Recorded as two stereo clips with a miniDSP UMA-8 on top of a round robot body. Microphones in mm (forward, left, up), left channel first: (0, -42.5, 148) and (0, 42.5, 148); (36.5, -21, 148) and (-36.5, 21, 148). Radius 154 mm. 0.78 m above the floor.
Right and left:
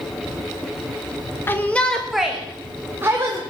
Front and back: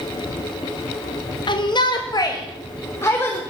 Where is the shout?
30° right, 1.5 m; by 3.4 s 35° left, 2.5 m.